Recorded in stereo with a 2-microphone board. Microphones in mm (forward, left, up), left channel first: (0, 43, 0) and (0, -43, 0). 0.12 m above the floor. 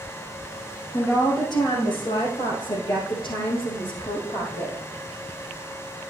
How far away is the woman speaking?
About 2.5 m.